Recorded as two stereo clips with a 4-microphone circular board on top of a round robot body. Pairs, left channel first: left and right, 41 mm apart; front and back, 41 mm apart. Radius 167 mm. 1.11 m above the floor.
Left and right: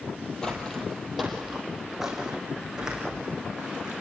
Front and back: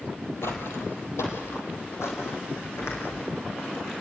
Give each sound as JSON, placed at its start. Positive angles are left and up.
{"t": 0.4, "sound": "footsteps", "azimuth_deg": 15, "distance_m": 2.5}